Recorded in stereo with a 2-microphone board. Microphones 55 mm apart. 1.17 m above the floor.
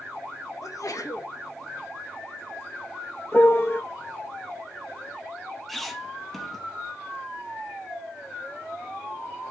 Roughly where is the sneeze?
Left.